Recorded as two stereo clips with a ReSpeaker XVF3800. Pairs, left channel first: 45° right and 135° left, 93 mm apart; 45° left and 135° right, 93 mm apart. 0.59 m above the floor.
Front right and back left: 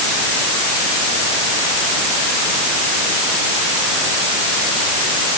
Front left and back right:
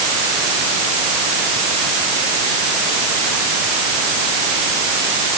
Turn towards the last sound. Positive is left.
No sound to turn to.